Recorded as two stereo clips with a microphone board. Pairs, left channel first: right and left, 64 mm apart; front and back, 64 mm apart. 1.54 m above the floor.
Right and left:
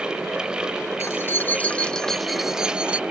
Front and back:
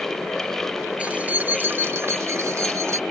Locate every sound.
1.0 s keys jangling: 115° right; by 3.0 s 155° left